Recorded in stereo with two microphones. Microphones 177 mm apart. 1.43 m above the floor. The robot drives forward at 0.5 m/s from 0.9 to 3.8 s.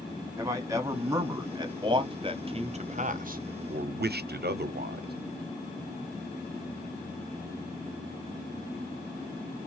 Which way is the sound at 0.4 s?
20° right (ahead or behind).